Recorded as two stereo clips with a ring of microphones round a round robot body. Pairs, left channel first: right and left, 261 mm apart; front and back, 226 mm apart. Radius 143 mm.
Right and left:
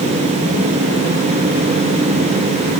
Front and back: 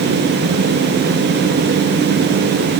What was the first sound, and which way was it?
Only background noise.